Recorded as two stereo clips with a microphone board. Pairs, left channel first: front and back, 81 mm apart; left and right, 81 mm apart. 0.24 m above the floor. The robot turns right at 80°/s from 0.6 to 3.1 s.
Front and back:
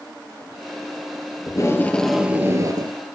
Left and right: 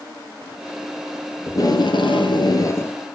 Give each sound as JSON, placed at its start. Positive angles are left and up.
{"t": 1.5, "sound": "tape being pulled", "azimuth_deg": 35, "distance_m": 1.9}